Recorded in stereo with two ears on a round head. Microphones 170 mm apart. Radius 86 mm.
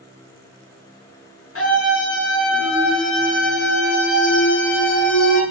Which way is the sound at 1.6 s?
80° left.